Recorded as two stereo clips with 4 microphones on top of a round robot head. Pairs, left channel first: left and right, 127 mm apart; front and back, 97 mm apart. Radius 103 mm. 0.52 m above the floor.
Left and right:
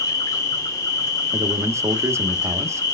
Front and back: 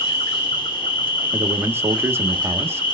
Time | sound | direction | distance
0.0 | an insect | 30° left | 1.8 m
1.3 | a man speaking | 135° right | 0.8 m